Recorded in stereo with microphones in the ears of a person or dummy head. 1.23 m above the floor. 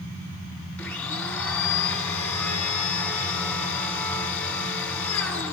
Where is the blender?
15° left (ahead or behind), 1.9 m.